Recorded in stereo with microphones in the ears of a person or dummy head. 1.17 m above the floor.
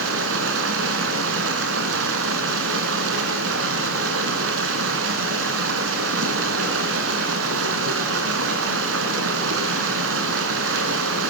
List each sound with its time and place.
0.0 s running water: 70° right (ahead or behind), 3 m